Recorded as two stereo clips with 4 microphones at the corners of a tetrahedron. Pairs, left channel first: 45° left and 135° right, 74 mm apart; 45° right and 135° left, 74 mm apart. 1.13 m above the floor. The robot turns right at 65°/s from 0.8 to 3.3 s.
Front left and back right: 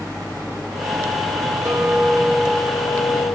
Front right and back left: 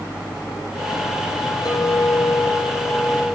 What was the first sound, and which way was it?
A clink, 75° right.